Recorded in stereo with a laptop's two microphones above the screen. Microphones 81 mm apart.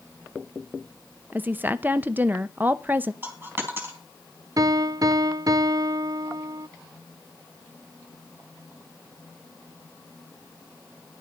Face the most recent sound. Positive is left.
turn(degrees=-50)  # may be behind; listen again after turning